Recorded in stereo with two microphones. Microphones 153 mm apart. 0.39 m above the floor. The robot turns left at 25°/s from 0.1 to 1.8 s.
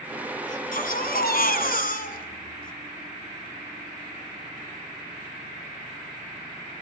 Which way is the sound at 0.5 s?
110° left.